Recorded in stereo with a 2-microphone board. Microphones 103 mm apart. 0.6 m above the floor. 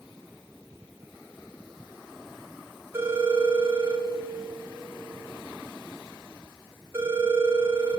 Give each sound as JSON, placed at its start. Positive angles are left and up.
{"t": 2.9, "sound": "a phone ringing", "side_deg": -25, "distance_m": 3.5}